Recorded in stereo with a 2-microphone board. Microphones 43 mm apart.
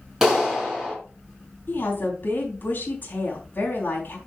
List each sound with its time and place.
0.2 s a clap: 10° right (ahead or behind), 4.5 m
1.7 s a woman speaking: 45° left (ahead or behind), 4.5 m